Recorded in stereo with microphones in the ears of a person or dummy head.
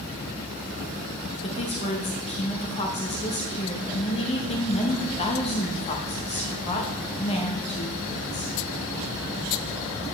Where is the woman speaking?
35° left (ahead or behind), 0.9 m.